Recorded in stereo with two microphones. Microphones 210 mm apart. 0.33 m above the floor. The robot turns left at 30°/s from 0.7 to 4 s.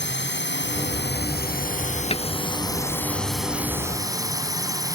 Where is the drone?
80° left; by 5.0 s 20° right.